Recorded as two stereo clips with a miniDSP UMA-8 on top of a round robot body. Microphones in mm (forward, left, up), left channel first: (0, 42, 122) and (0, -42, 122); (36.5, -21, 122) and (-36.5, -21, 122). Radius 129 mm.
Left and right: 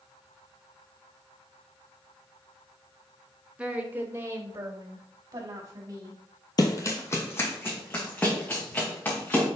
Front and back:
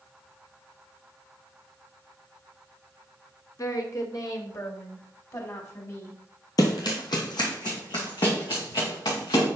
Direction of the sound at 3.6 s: 15° right.